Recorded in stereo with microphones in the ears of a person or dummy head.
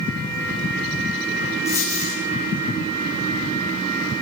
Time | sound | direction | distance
1.6 | a dropped coin | 10° left (ahead or behind) | 7 m